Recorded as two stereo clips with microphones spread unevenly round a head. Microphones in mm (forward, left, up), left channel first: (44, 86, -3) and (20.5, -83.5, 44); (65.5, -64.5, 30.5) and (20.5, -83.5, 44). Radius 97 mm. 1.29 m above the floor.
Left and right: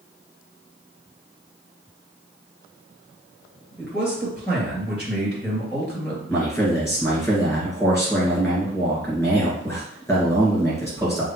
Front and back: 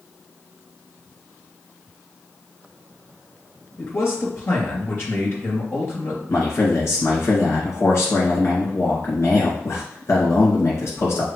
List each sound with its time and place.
3.8 s a man speaking: 10° right, 2.5 m
6.3 s a man speaking: 5° right, 1.8 m